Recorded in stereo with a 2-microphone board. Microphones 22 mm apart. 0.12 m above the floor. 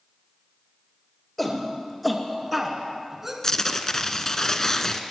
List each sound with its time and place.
1.4 s a shout: 10° left (ahead or behind), 2.5 m; by 3.3 s 15° right (ahead or behind), 1.7 m
3.4 s tearing paper: 25° left (ahead or behind), 0.8 m